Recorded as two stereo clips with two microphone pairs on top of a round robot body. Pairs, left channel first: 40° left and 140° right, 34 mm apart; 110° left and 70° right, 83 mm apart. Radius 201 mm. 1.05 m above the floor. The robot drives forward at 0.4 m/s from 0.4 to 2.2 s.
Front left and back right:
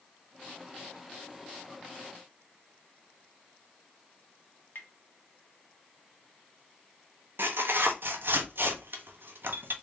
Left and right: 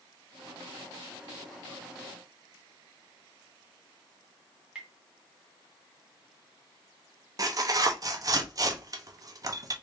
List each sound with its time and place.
4.8 s tapping: 10° left, 1.0 m
7.4 s tearing paper: 120° right, 0.7 m